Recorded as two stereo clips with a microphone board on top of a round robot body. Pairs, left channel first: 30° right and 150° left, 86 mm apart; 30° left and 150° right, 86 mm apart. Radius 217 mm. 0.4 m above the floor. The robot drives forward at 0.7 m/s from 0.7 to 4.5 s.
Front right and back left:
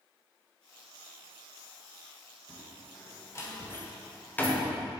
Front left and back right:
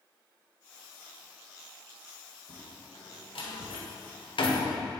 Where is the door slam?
20° left, 2.5 m; by 4.8 s 45° left, 1.5 m.